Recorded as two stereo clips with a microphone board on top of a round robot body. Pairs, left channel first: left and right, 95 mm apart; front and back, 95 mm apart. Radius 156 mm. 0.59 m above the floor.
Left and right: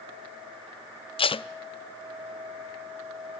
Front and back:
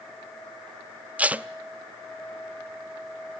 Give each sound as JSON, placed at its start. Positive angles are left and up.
{"t": 1.2, "sound": "tape being pulled", "azimuth_deg": 105, "distance_m": 0.6}